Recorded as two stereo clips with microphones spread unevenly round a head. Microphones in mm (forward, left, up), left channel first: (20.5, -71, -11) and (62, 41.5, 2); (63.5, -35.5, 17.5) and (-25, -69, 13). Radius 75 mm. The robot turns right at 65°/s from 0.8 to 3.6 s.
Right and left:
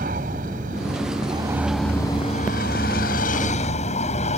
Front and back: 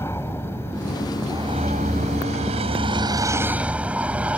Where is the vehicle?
95° left; by 4.4 s 80° right.